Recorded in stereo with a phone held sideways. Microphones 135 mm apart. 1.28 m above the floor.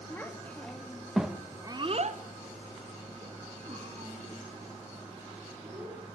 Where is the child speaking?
15° left (ahead or behind), 1.7 m; by 6.0 s 40° right (ahead or behind), 3.5 m.